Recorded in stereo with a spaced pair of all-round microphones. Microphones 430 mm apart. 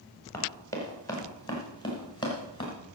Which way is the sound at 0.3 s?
5° left (ahead or behind).